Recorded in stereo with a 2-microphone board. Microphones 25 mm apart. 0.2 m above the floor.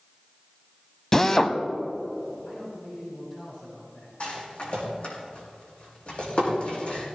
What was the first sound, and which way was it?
A drill, 20° left (ahead or behind).